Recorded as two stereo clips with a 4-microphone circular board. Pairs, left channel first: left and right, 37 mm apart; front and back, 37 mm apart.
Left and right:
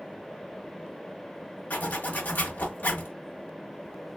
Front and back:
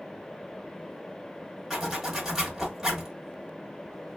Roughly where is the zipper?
Left.